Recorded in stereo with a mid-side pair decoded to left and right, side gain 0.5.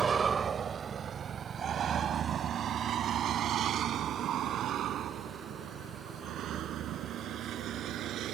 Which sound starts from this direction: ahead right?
A vehicle, at 0.0 s.